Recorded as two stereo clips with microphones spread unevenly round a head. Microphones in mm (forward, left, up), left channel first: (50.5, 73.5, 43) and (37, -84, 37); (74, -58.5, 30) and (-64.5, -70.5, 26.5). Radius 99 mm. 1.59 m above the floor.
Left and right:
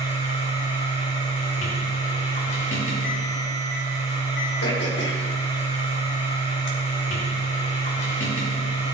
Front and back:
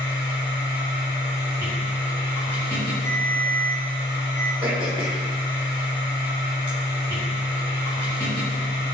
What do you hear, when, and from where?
0.0 s a machine running: 115° left, 4.5 m
3.0 s a ringtone: 90° left, 5 m
4.6 s throat clearing: 115° left, 3 m